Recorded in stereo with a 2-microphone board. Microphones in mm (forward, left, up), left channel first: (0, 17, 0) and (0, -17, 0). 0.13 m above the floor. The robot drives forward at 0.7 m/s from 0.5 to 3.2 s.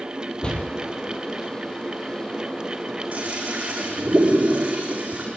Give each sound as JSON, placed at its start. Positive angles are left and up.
{"t": 0.4, "sound": "a door slam", "side_deg": 30, "distance_m": 2.5}
{"t": 3.1, "sound": "a toilet flushing", "side_deg": -40, "distance_m": 7.5}